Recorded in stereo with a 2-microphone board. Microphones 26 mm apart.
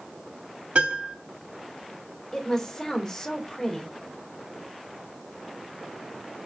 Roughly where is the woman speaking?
Left.